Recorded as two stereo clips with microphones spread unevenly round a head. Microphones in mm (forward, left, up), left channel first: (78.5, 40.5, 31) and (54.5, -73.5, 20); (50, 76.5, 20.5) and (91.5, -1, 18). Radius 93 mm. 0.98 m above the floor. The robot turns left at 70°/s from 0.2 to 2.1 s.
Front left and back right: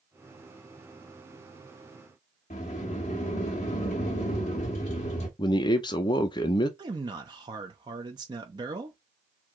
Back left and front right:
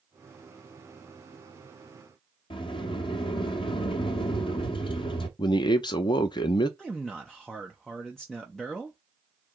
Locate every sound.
2.5 s a sliding door: 115° left, 0.7 m
5.4 s a man speaking: 130° left, 0.5 m
6.8 s a man speaking: 155° right, 0.6 m